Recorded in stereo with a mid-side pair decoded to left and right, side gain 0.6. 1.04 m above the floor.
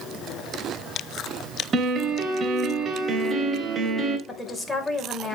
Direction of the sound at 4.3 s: 5° left.